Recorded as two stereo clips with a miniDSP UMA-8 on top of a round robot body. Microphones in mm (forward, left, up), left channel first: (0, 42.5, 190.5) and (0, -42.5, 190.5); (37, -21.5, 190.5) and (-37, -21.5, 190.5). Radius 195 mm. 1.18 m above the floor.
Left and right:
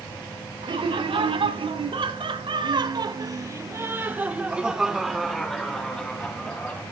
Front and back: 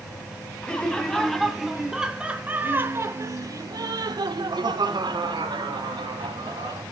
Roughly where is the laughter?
Right.